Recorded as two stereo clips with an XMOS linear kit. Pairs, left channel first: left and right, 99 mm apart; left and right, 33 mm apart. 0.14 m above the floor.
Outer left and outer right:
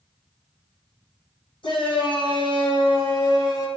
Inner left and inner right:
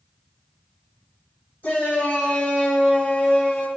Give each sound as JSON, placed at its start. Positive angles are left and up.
{"t": 1.6, "sound": "a shout", "side_deg": 55, "distance_m": 3.0}